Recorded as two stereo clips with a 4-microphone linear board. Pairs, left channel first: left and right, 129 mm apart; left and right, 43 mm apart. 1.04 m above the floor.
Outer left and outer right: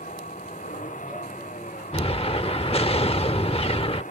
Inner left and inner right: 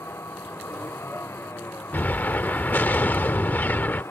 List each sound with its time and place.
0.0 s a vehicle: 85° left
1.9 s an explosion: 50° left (ahead or behind)